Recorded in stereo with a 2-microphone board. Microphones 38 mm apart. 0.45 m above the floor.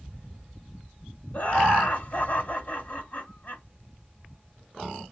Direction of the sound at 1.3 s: 55° left (ahead or behind).